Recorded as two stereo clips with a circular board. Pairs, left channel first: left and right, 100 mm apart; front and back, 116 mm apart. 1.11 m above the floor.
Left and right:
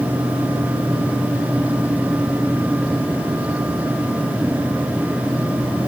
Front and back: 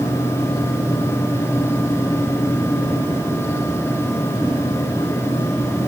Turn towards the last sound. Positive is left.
No sound to turn to.